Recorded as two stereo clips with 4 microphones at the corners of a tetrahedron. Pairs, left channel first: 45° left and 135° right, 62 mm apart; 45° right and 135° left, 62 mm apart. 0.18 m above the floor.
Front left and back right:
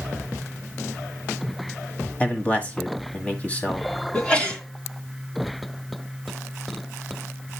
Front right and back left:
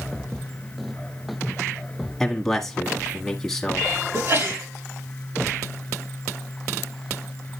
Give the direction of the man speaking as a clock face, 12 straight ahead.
11 o'clock.